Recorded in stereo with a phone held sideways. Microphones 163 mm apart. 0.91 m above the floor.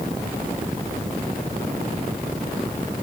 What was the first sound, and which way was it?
Only background noise.